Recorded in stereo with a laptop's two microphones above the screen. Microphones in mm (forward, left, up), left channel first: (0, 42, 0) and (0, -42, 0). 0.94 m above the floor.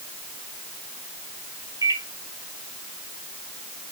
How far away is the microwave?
About 1.0 m.